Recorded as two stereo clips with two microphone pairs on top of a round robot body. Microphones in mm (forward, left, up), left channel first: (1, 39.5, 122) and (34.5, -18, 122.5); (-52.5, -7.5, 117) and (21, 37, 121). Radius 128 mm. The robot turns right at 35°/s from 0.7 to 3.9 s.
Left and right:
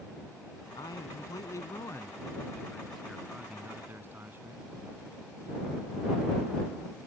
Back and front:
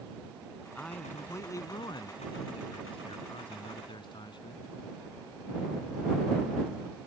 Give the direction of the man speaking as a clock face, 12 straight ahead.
8 o'clock.